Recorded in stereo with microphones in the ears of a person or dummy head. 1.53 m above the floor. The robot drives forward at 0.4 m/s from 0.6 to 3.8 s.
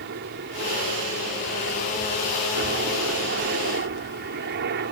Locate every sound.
0.0 s a helicopter: 55° right (ahead or behind)